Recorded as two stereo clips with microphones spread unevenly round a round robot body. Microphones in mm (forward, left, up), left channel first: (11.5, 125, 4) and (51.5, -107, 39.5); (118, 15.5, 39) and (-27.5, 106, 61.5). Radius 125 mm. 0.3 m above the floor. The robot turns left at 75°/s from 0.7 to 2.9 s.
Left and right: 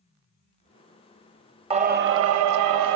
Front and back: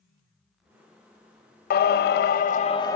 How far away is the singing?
About 0.5 m.